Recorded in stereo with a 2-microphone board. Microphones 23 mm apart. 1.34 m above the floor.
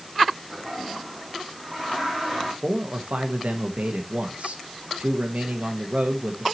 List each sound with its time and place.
0.5 s a toilet flushing: 5° left (ahead or behind), 7 m
2.6 s a man speaking: 75° right (ahead or behind), 1.3 m